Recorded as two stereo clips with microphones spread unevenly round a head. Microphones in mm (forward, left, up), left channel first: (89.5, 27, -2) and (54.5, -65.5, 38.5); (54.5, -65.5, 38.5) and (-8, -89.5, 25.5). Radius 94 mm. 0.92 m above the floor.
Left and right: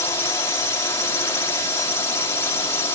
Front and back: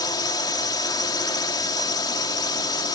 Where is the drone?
25° left.